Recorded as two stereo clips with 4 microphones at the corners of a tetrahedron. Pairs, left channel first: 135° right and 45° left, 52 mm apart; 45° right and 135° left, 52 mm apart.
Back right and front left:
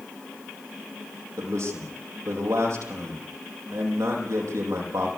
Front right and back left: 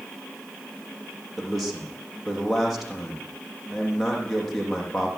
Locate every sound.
1.4 s a man speaking: 45° left, 8 m